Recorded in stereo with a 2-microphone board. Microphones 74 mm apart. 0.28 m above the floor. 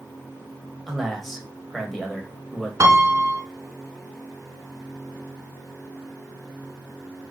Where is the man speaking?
Centre (ahead or behind), 0.9 m.